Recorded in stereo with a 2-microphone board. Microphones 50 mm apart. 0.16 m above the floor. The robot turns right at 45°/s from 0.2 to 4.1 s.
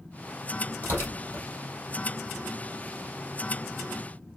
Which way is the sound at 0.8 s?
35° left (ahead or behind).